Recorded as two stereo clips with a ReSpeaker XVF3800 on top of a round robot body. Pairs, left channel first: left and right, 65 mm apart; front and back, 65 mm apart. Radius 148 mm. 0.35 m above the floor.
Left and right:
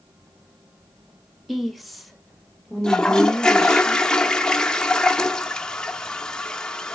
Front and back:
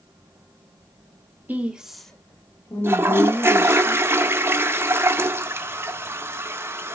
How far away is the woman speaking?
About 1.0 m.